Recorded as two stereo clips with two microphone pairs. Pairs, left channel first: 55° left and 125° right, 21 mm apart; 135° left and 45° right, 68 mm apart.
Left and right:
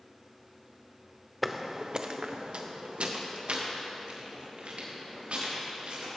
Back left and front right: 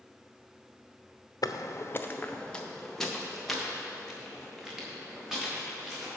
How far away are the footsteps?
About 0.8 m.